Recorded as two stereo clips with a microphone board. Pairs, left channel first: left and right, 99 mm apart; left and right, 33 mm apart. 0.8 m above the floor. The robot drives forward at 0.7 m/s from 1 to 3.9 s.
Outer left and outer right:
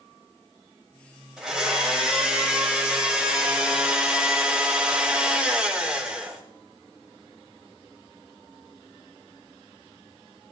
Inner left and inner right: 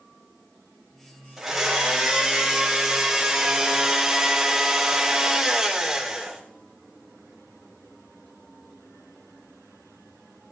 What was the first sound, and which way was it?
A blender, 5° right (ahead or behind).